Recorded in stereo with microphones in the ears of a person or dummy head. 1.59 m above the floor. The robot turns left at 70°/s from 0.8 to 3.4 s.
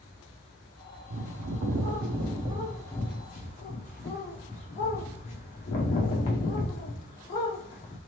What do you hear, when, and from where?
1.1 s a bird: 60° right, 0.8 m; by 8.0 s 140° left, 0.8 m